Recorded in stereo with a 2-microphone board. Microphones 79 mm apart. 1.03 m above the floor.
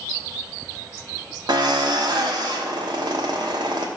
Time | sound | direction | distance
1.5 | a drill | 70° right (ahead or behind) | 1.0 m